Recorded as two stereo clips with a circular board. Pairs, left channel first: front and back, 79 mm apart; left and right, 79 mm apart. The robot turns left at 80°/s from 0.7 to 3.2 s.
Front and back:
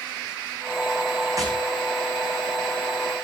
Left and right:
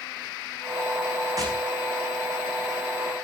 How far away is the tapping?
About 8 m.